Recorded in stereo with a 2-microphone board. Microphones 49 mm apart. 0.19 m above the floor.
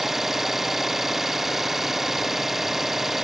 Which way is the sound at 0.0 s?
5° right (ahead or behind).